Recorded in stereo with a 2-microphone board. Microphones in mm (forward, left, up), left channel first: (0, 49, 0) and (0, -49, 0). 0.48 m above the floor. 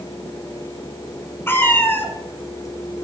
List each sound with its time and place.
1.5 s a cat meowing: 20° left (ahead or behind), 1.5 m